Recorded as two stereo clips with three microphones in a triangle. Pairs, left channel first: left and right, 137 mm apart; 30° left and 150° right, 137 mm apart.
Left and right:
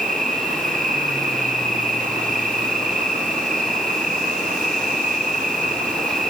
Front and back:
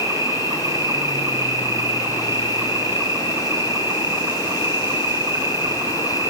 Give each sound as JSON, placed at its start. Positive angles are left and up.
{"t": 0.0, "sound": "an insect", "azimuth_deg": -80, "distance_m": 4.0}